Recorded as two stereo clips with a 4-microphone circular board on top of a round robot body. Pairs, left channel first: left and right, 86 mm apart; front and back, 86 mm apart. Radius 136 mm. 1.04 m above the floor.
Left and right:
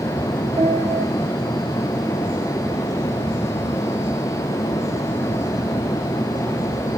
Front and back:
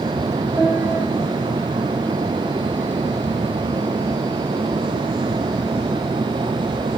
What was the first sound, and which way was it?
A piano, 100° right.